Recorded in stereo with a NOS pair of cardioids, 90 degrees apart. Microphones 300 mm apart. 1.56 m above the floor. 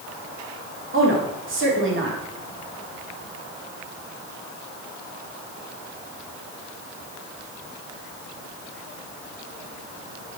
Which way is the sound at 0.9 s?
45° right.